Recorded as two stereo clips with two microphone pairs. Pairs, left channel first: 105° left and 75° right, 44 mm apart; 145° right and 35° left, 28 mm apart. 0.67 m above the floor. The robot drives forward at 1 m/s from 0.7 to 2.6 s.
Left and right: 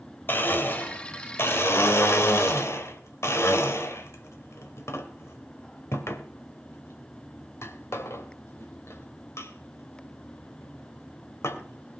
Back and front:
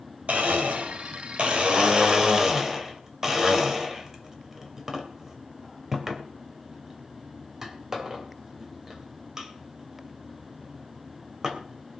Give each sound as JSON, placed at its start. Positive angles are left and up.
{"t": 0.3, "sound": "a blender", "azimuth_deg": 65, "distance_m": 2.5}